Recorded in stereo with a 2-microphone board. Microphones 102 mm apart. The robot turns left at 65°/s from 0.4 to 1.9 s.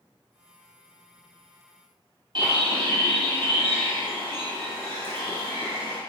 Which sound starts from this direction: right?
A bird, at 2.4 s.